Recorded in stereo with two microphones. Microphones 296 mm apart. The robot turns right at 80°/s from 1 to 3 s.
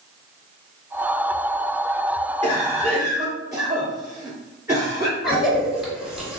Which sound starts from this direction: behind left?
A cough, at 2.4 s.